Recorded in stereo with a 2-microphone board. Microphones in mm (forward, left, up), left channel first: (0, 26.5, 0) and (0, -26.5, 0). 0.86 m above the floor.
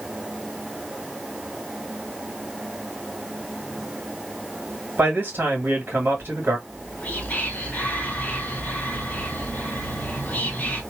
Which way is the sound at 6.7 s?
30° left (ahead or behind).